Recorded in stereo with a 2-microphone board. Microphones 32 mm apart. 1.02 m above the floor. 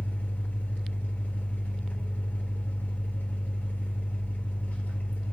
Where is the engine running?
70° left (ahead or behind), 3.5 m.